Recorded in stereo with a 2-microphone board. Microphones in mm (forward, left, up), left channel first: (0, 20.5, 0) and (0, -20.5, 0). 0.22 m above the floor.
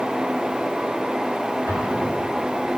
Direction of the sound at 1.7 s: 80° left.